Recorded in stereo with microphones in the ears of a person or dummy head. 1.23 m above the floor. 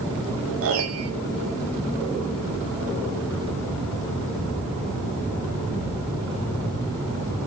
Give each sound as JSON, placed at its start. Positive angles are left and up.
{"t": 0.6, "sound": "a piano", "side_deg": -70, "distance_m": 1.6}